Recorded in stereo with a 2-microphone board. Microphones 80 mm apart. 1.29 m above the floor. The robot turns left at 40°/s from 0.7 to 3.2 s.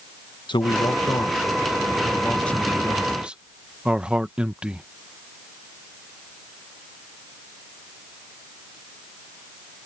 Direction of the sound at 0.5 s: 85° left.